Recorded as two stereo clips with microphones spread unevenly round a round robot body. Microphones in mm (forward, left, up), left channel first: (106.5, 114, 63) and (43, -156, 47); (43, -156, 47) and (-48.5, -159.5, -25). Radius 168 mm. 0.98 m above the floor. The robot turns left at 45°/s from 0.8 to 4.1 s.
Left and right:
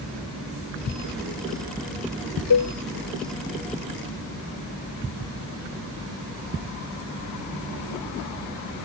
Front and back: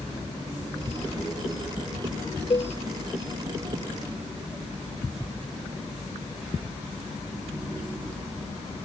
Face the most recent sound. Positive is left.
turn(degrees=-10)